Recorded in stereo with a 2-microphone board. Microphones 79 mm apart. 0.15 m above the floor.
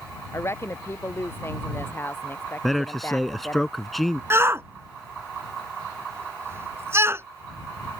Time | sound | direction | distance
0.3 | a woman speaking | 35° left (ahead or behind) | ?
2.6 | a man speaking | centre (ahead or behind) | ?
4.3 | a shout | 35° right (ahead or behind) | ?